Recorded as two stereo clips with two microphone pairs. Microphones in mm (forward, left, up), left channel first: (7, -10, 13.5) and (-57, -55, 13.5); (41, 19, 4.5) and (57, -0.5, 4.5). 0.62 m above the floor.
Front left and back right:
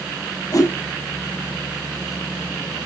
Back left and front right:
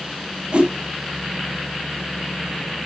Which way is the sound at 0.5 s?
10° right.